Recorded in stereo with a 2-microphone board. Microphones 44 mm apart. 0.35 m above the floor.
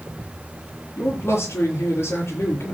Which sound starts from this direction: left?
A man speaking, at 1.0 s.